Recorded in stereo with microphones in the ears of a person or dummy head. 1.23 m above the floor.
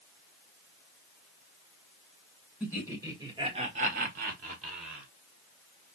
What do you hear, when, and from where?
2.6 s laughter: 10° right (ahead or behind), 1.4 m; by 5.1 s 35° right (ahead or behind), 1.2 m